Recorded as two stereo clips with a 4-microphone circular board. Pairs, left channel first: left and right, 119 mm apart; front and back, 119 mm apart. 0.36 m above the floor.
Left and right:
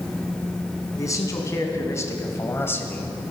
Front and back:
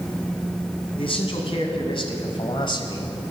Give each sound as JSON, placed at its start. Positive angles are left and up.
{"t": 1.0, "sound": "a man speaking", "azimuth_deg": 30, "distance_m": 3.0}